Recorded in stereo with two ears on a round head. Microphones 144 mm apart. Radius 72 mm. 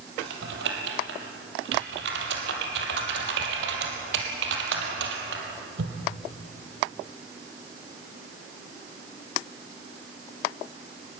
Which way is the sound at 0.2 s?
80° right.